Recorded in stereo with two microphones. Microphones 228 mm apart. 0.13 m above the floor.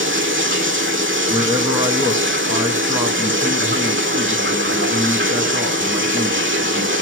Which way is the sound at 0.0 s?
60° right (ahead or behind).